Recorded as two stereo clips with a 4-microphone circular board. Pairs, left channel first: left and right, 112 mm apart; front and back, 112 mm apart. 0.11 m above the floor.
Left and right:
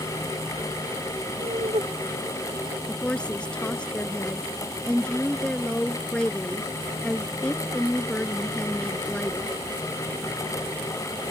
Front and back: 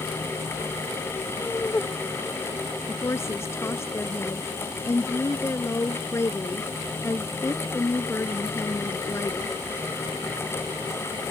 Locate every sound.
1.4 s laughter: 75° right; by 2.8 s 80° right
2.9 s a woman speaking: 20° left